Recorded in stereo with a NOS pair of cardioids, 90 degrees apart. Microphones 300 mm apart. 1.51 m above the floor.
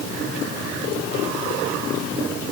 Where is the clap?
I don't hear a clap.